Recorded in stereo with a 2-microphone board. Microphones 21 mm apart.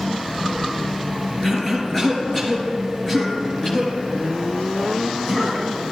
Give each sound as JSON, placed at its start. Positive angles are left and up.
{"t": 1.4, "sound": "a cough", "side_deg": 15, "distance_m": 2.5}